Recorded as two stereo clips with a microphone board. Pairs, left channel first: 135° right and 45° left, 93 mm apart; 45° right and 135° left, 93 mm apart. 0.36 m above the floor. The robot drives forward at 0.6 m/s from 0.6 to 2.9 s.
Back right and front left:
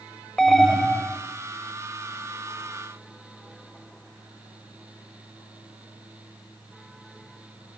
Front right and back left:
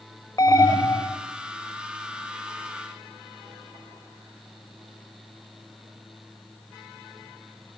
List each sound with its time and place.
0.4 s an alarm: 50° right, 1.6 m; by 1.2 s 65° right, 1.4 m